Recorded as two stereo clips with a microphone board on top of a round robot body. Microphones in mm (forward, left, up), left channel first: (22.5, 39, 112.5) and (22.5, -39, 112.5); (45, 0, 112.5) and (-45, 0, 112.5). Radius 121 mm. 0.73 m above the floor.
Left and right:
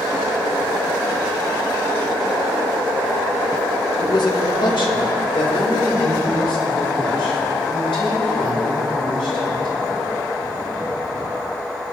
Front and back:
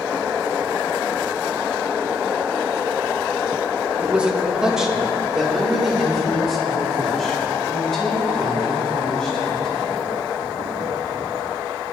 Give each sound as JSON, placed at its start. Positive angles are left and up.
{"t": 4.0, "sound": "a man speaking", "azimuth_deg": 105, "distance_m": 1.8}